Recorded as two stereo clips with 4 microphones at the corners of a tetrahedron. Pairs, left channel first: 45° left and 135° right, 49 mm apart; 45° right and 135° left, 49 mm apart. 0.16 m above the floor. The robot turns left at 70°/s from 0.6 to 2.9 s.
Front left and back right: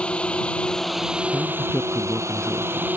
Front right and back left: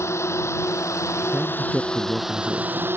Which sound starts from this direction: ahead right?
A drone, at 0.0 s.